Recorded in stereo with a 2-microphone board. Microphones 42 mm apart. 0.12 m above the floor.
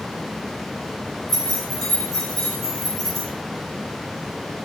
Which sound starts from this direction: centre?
Keys jangling, at 1.3 s.